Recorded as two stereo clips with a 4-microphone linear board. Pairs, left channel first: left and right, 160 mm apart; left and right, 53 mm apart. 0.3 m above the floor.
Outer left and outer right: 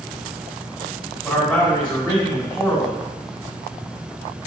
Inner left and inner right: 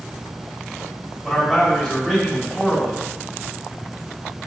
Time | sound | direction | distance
1.2 | a man speaking | 10° left (ahead or behind) | 1.6 m